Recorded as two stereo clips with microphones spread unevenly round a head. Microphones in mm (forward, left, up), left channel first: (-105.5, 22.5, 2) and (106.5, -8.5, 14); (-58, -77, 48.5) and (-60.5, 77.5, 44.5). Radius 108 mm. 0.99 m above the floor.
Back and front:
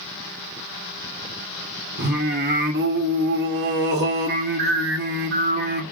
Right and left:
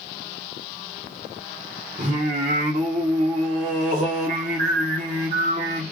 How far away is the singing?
About 0.8 m.